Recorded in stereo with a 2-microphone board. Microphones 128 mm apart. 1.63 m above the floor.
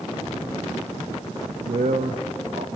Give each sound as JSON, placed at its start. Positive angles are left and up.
{"t": 1.6, "sound": "a man speaking", "side_deg": -75, "distance_m": 0.5}